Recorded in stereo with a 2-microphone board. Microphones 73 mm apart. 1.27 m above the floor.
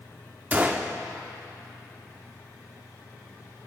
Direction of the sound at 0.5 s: 25° right (ahead or behind).